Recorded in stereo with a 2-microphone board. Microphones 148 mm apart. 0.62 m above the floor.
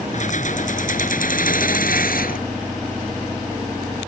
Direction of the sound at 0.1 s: 55° left (ahead or behind).